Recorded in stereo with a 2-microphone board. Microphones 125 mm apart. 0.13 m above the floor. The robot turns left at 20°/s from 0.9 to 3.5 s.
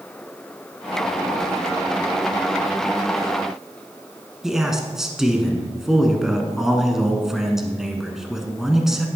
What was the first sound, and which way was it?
A man speaking, 5° right (ahead or behind).